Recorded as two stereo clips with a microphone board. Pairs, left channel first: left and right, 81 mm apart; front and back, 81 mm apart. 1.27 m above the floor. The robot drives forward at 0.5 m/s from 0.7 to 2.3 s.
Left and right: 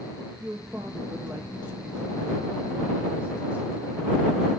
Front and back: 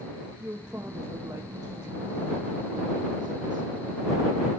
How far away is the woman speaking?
About 0.8 m.